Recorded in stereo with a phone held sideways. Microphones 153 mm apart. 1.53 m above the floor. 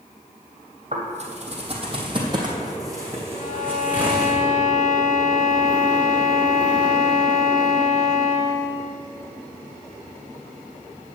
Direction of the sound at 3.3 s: 60° left (ahead or behind).